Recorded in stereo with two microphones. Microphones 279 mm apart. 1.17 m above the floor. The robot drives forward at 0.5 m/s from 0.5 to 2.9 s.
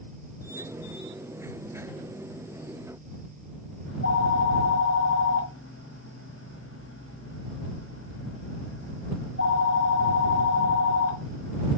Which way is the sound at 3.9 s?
50° left (ahead or behind).